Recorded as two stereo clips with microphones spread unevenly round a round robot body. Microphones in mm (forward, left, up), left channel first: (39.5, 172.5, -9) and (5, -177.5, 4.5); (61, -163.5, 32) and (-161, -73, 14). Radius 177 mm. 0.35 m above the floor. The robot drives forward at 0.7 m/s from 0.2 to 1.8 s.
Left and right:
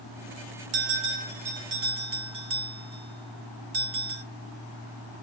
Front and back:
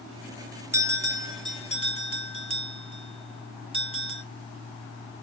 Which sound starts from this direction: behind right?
A bell, at 0.7 s.